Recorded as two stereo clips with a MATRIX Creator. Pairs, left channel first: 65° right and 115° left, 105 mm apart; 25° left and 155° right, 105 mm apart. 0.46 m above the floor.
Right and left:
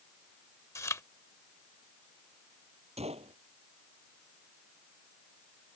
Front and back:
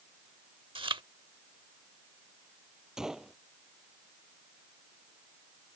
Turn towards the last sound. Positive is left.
turn(degrees=120)